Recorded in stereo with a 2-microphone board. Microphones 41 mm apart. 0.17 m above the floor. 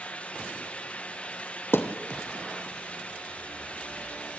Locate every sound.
1.7 s a thud: 70° left (ahead or behind), 2 m